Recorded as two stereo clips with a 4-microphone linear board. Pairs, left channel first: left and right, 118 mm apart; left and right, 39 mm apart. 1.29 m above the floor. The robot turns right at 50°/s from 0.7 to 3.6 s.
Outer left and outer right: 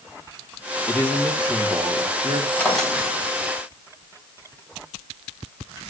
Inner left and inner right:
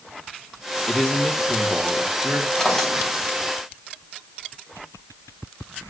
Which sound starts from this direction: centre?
A drawer, at 2.6 s.